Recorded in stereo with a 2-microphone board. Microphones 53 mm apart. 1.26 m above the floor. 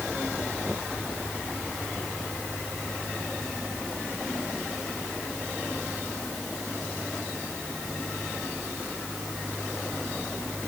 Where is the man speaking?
I don't hear a man speaking.